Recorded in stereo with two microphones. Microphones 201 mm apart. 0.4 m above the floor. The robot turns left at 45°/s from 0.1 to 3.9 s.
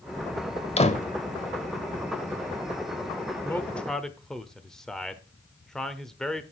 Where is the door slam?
30° left (ahead or behind), 1.1 m; by 1.1 s 45° left (ahead or behind), 1.1 m.